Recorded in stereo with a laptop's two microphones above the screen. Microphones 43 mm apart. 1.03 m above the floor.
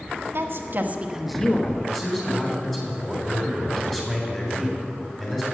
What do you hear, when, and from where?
0.3 s a woman speaking: 60° right (ahead or behind), 1.5 m; by 1.8 s 40° left (ahead or behind), 1.1 m
1.9 s a man speaking: 10° left (ahead or behind), 3 m